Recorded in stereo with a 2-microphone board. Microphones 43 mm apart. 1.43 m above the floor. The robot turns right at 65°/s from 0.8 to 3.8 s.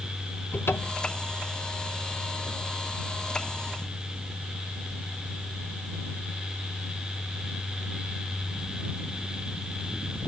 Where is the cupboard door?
60° left (ahead or behind); by 1.1 s 40° left (ahead or behind).